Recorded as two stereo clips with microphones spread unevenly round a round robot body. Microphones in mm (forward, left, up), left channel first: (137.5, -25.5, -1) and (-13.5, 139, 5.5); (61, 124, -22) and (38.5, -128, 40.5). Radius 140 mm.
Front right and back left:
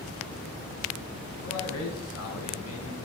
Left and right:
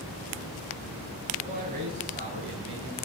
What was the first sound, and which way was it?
A man speaking, 35° right.